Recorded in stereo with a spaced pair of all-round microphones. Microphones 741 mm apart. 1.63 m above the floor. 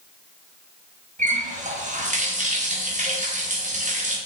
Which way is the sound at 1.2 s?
10° right (ahead or behind).